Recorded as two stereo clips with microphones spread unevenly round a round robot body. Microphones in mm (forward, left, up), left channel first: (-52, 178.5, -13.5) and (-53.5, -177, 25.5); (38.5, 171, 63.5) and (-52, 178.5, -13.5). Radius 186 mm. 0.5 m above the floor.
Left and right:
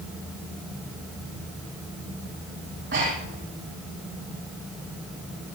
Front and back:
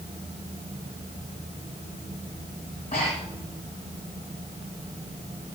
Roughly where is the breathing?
Ahead right.